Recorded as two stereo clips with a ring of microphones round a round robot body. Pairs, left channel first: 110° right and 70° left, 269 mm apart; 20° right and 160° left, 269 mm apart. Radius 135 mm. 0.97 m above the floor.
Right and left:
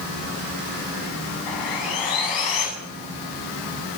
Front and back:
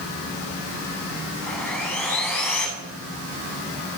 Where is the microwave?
No microwave in this recording.